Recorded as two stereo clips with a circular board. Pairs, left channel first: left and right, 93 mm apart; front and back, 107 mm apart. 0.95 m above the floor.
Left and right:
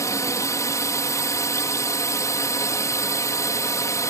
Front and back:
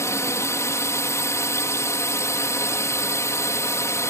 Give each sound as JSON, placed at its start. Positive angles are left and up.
{"t": 0.0, "sound": "a drone", "azimuth_deg": 50}